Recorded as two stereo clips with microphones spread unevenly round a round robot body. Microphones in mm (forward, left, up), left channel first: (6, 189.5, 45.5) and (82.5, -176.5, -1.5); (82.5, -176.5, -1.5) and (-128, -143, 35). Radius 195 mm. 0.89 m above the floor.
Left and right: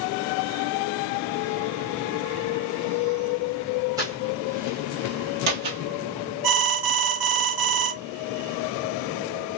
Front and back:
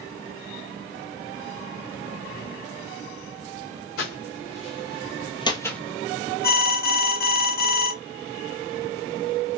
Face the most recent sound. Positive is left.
turn(degrees=-55)